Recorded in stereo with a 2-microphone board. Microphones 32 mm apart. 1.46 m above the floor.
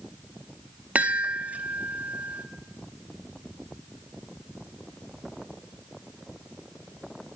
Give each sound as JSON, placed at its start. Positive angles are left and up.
{"t": 0.9, "sound": "a chime", "side_deg": -50, "distance_m": 0.5}